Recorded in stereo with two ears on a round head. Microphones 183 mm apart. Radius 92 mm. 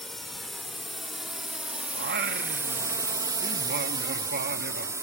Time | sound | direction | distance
0.0 | a drone | centre (ahead or behind) | ?
1.9 | singing | 50° right (ahead or behind) | ?